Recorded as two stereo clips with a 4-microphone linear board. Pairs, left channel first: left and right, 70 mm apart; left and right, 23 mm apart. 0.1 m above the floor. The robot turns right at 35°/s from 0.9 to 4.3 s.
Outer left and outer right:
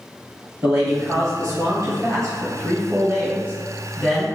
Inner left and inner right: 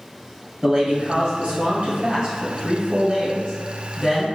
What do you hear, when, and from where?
0.6 s a man speaking: 115° right, 1.6 m; by 4.2 s straight ahead, 1.6 m